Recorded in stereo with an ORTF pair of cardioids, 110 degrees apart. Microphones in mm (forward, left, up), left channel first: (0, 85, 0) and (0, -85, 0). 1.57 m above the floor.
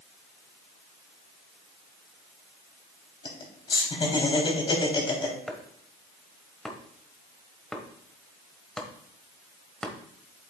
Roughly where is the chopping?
Ahead.